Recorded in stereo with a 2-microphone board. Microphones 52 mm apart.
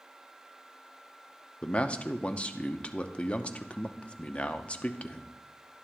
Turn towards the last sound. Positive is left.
turn(degrees=25)  # may be behind; listen again after turning